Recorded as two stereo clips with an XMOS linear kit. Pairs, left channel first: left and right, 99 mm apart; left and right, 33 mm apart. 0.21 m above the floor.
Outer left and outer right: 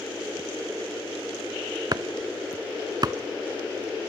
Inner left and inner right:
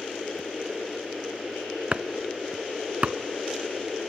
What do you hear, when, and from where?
1.9 s chopping: 45° right (ahead or behind), 0.6 m